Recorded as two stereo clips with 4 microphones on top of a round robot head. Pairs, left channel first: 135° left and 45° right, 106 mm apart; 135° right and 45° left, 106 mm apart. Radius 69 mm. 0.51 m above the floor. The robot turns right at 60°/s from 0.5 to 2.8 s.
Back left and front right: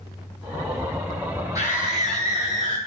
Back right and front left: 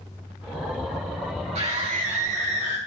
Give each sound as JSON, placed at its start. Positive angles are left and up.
{"t": 1.6, "sound": "a scream", "azimuth_deg": 15, "distance_m": 5.5}